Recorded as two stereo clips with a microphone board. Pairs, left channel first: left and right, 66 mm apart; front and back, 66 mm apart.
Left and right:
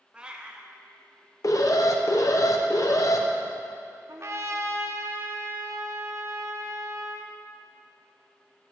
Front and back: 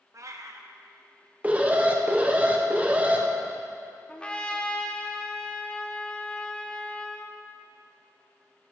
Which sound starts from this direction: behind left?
An alarm, at 1.4 s.